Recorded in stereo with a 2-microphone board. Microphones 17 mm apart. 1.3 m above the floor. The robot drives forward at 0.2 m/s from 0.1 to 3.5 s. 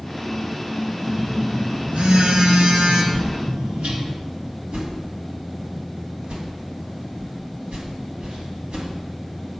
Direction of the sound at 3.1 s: 65° right (ahead or behind).